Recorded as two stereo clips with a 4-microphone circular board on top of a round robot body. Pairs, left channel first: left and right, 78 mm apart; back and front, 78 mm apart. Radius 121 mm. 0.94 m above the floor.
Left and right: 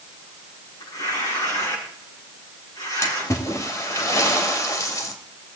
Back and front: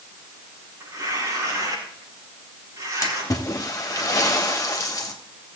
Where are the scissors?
No scissors in this recording.